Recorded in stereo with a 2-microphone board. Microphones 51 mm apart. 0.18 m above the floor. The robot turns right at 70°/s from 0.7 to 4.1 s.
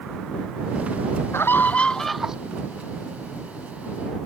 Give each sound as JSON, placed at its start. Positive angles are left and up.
{"t": 1.3, "sound": "a scream", "azimuth_deg": 120}